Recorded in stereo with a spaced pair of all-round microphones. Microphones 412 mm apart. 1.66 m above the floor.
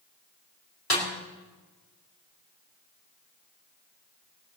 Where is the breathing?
No breathing in this recording.